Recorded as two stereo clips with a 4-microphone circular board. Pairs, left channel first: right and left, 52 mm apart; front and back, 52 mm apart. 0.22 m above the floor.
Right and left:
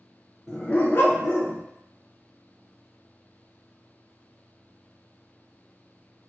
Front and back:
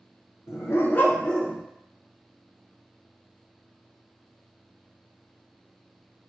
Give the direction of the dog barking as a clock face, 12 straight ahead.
12 o'clock.